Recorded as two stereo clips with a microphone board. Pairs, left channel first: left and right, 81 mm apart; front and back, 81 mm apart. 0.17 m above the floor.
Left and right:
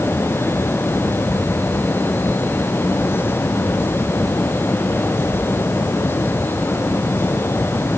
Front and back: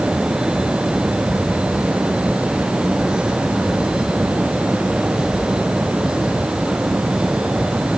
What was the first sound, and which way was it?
Only background noise.